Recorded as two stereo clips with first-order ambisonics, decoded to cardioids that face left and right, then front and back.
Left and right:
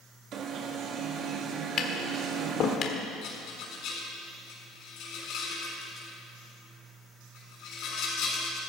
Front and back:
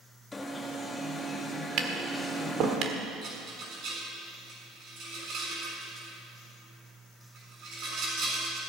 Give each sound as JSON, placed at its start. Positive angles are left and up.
{"t": 0.3, "sound": "an alarm", "azimuth_deg": -70, "distance_m": 1.2}
{"t": 1.8, "sound": "tapping", "azimuth_deg": 140, "distance_m": 1.6}
{"t": 3.2, "sound": "a rattle", "azimuth_deg": 130, "distance_m": 6.5}